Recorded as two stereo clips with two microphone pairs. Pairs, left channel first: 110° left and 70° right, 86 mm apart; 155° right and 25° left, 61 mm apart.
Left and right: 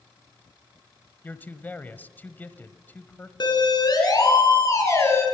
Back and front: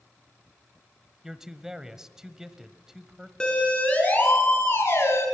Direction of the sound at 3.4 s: 130° left.